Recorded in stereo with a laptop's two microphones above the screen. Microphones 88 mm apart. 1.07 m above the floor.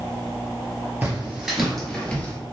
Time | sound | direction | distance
1.0 | footsteps | 20° right (ahead or behind) | 1.1 m